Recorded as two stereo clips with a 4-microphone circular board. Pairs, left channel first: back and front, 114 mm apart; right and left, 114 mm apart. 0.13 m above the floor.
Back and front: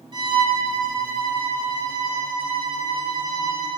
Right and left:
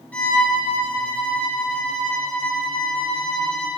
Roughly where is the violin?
Ahead.